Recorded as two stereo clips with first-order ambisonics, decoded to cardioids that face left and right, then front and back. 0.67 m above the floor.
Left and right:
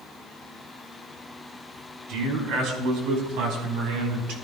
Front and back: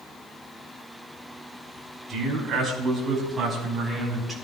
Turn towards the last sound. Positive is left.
turn(degrees=-100)